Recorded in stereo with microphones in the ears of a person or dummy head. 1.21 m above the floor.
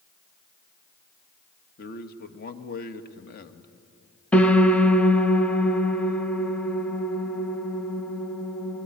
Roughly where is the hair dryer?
I don't hear a hair dryer.